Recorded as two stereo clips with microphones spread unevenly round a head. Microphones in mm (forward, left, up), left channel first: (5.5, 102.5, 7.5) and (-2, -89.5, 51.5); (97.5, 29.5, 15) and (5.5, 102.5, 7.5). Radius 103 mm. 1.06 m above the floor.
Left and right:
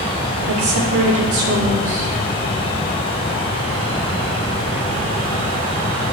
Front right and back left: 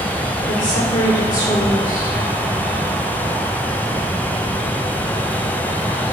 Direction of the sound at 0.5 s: 75° right.